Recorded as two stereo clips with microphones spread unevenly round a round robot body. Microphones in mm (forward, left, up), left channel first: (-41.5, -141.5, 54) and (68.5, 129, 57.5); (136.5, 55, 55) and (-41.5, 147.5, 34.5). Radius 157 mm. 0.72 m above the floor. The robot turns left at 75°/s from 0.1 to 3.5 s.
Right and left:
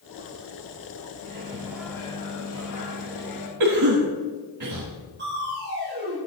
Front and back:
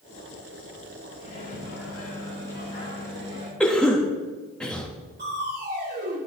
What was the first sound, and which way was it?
A microwave, 30° left.